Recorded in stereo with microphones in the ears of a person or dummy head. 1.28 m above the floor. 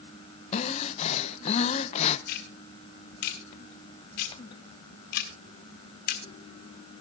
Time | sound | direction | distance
0.5 | breathing | 35° left (ahead or behind) | 0.6 m
2.3 | ticking | 60° left (ahead or behind) | 1.5 m